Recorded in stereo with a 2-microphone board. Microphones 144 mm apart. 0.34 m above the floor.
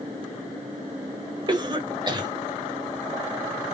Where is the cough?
30° right (ahead or behind), 1.2 m.